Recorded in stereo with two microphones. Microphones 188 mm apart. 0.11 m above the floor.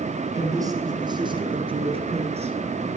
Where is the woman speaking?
15° right (ahead or behind), 2.5 m; by 2.6 s 35° right (ahead or behind), 1.7 m.